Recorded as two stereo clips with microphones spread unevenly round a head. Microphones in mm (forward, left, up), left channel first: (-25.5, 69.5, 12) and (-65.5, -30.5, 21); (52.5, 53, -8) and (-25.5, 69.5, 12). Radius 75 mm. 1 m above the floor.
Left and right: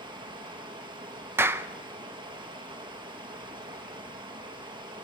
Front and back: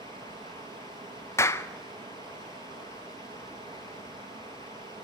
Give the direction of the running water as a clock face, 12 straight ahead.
5 o'clock.